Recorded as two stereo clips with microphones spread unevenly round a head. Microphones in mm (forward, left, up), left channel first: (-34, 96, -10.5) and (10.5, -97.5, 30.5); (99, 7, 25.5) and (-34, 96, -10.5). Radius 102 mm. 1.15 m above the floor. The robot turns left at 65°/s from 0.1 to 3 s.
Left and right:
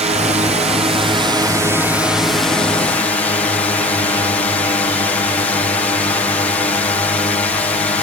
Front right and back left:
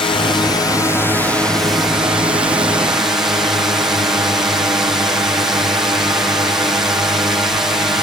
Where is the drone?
60° right; by 8.0 s 110° left.